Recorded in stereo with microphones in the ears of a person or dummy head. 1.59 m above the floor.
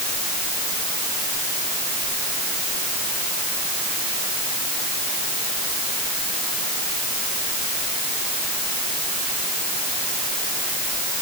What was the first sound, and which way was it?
Only background noise.